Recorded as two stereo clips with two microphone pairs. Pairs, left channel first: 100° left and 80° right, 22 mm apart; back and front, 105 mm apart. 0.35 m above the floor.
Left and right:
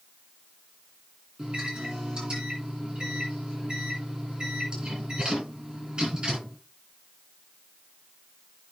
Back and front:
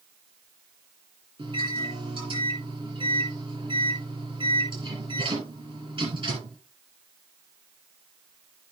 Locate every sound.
1.4 s a microwave: 30° right, 4.5 m